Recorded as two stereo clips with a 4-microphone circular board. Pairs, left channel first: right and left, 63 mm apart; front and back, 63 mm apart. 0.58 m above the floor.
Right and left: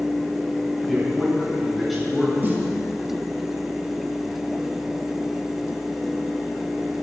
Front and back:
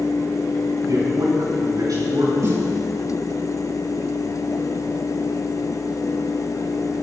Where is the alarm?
I don't hear an alarm.